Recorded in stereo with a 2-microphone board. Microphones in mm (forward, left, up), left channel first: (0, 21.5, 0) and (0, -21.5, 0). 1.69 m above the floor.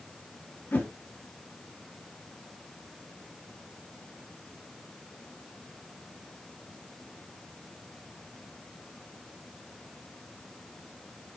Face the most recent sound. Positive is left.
turn(degrees=50)  # may be behind; listen again after turning